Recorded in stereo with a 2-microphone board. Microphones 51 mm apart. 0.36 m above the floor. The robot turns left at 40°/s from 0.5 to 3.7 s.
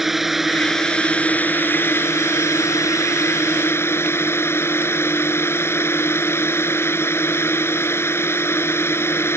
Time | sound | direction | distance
0.0 | a drone | 175° right | ?